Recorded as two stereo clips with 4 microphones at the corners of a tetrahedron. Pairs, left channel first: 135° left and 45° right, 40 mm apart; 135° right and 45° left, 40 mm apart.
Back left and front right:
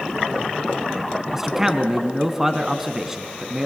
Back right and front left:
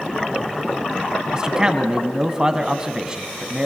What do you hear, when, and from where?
1.3 s a man speaking: 20° left, 1.5 m